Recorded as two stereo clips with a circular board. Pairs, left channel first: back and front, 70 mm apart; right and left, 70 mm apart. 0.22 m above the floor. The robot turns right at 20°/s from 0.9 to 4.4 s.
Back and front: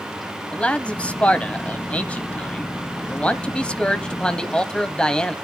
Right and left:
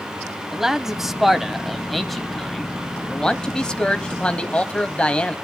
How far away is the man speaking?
About 1.0 m.